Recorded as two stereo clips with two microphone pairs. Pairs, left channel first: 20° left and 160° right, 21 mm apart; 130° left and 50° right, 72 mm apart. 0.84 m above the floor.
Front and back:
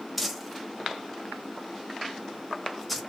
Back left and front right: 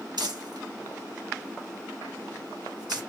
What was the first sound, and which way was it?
Crumpling, 70° right.